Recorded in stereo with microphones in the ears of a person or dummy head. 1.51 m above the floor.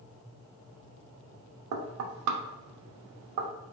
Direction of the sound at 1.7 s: 80° right.